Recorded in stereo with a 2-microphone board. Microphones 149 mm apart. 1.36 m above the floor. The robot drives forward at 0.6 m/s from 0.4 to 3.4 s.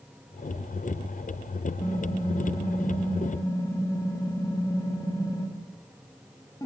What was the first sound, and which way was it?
Typing on a keyboard, 25° left (ahead or behind).